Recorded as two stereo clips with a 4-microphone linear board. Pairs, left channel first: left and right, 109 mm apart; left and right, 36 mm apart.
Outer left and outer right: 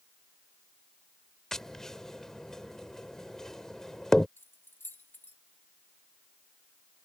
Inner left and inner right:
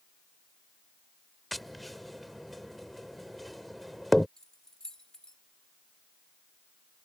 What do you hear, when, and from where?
1.5 s tapping: 5° left (ahead or behind)
4.4 s keys jangling: 20° left (ahead or behind)